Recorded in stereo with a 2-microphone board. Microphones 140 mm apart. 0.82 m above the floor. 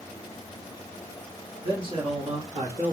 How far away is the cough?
No cough in this recording.